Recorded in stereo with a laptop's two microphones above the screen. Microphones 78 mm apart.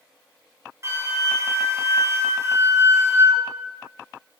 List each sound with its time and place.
0.8 s a flute: 40° right (ahead or behind), 1.1 m